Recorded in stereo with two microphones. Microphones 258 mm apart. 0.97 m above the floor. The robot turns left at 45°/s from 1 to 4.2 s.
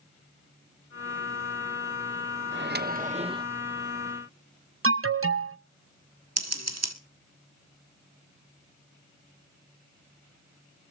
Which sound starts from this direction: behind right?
A microwave, at 2.5 s.